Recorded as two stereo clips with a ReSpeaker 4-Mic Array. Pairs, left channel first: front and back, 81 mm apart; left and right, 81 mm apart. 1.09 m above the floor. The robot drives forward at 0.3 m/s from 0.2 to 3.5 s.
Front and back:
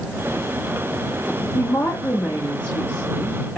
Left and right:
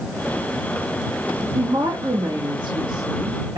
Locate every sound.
1.6 s a woman speaking: 60° right, 2.0 m; by 3.6 s 80° right, 1.8 m